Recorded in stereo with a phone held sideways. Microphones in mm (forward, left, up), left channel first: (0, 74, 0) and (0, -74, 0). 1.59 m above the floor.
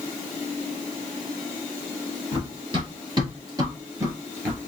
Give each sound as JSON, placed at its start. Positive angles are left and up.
{"t": 2.3, "sound": "running footsteps", "side_deg": -40, "distance_m": 2.0}